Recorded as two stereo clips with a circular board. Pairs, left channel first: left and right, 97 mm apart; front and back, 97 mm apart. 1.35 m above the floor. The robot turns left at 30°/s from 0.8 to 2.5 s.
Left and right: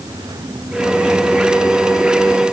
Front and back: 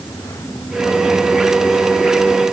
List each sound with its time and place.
Only background noise.